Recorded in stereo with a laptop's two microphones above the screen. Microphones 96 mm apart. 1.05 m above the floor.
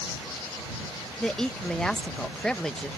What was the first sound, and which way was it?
A woman speaking, 5° left (ahead or behind).